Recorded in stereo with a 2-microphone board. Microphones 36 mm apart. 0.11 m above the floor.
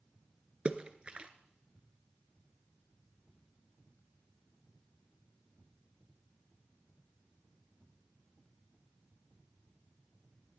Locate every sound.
0.7 s a splash: 35° right (ahead or behind), 0.8 m